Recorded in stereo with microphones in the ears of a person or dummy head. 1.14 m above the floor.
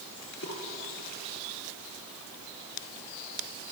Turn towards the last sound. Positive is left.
turn(degrees=55)  # may be behind; listen again after turning